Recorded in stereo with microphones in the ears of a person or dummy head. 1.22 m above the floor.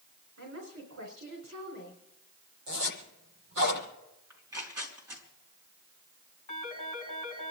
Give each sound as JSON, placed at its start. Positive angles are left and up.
{"t": 0.4, "sound": "a woman speaking", "side_deg": -60, "distance_m": 4.0}
{"t": 2.7, "sound": "a zipper", "side_deg": -60, "distance_m": 8.5}
{"t": 4.3, "sound": "tearing paper", "side_deg": -10, "distance_m": 4.5}
{"t": 6.5, "sound": "a phone ringing", "side_deg": 35, "distance_m": 4.5}